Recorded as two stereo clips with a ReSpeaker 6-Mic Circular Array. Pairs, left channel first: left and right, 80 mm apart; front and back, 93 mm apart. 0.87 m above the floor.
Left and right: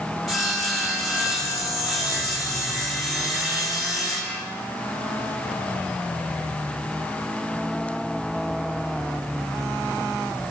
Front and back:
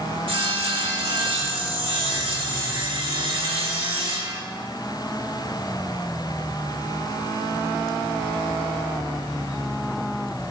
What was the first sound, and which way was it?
Sawing, 175° right.